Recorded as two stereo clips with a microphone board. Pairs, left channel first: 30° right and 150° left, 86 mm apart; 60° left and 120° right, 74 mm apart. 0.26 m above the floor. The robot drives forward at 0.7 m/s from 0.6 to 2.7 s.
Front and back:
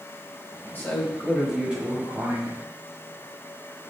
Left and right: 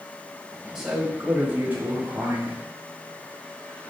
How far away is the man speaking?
About 1.1 m.